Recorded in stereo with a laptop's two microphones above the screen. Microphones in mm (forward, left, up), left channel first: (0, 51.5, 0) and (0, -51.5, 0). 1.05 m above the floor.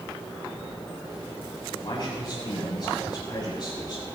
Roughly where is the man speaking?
Left.